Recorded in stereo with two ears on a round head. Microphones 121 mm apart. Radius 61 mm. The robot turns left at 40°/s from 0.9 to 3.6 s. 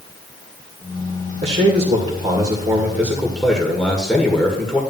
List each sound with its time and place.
1.4 s a man speaking: 100° right, 1.9 m; by 4.8 s 170° left, 1.9 m